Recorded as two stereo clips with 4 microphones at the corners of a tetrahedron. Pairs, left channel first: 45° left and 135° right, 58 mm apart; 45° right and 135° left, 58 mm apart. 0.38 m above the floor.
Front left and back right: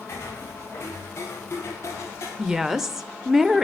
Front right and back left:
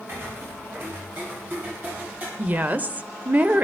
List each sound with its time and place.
0.1 s footsteps: 90° left, 7 m; by 2.3 s 80° left, 7 m
2.4 s a woman speaking: 145° left, 0.9 m